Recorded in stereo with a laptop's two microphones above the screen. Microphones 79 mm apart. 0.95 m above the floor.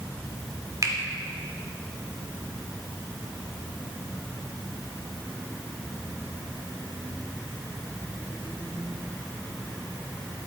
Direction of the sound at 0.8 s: 45° right (ahead or behind).